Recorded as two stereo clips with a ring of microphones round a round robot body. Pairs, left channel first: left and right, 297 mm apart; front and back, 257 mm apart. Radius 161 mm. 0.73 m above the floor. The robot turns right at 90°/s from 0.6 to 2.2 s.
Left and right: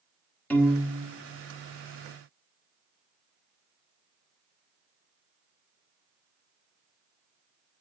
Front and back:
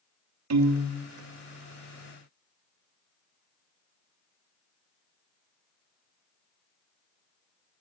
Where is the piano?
175° left, 1.4 m; by 1.0 s 145° right, 1.4 m.